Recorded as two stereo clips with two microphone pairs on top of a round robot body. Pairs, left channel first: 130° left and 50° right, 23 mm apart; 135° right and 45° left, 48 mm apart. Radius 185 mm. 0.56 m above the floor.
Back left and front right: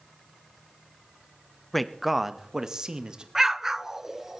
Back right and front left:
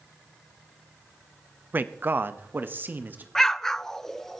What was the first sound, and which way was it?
A man speaking, 60° left.